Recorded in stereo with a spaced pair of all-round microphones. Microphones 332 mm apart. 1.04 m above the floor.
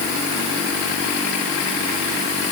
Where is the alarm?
I don't hear an alarm.